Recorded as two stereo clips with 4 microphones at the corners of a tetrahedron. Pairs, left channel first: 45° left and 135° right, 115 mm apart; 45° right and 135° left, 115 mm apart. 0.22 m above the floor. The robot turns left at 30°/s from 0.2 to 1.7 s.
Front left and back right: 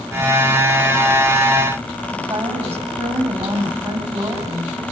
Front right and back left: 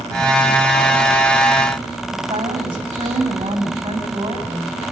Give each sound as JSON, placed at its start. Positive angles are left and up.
{"t": 2.1, "sound": "a woman speaking", "azimuth_deg": 180, "distance_m": 9.0}